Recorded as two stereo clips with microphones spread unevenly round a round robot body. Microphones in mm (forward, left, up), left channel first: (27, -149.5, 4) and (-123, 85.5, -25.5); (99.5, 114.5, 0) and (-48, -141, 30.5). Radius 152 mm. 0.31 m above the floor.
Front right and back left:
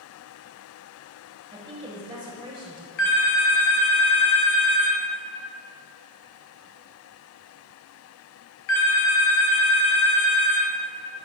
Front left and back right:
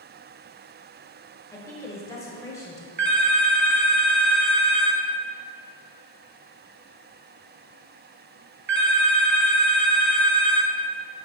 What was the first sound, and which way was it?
A woman speaking, 105° left.